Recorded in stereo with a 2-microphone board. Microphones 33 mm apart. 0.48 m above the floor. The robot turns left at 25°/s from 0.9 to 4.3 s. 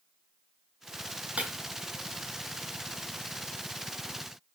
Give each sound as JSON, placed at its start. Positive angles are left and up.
{"t": 1.4, "sound": "breaking glass", "side_deg": -40, "distance_m": 2.0}